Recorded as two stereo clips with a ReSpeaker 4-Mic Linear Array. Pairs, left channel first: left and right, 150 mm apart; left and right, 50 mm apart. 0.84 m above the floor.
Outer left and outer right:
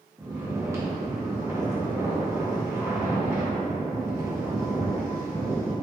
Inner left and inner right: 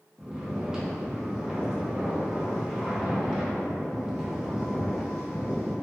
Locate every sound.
0.2 s snoring: 20° right (ahead or behind), 0.8 m